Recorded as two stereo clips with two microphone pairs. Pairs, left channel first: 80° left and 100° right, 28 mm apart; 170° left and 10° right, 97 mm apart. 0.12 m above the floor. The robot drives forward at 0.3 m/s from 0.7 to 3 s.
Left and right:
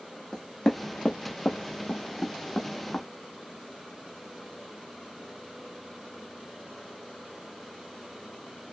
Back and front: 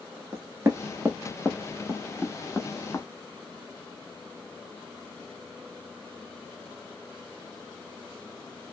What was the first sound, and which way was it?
Knocking, 30° left.